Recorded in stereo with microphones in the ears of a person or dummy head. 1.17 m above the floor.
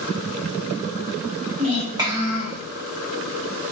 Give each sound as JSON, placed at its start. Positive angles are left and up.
{"t": 1.6, "sound": "a child speaking", "side_deg": -35, "distance_m": 1.1}